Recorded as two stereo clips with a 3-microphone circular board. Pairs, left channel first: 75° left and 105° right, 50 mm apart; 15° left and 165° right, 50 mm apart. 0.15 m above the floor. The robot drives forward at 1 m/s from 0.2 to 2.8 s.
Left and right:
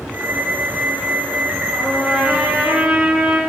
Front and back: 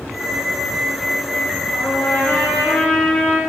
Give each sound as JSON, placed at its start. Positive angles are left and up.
{"t": 1.7, "sound": "a trumpet", "azimuth_deg": -35, "distance_m": 4.5}